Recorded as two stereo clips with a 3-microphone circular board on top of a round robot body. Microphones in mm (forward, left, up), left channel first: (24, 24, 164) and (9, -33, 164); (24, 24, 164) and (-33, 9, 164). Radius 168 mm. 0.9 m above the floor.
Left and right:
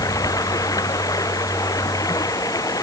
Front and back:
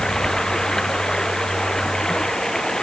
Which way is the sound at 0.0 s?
95° left.